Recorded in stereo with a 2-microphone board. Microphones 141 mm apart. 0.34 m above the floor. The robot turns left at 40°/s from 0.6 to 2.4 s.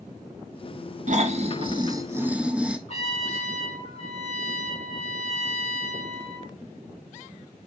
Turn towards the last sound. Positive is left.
turn(degrees=40)  # may be behind; listen again after turning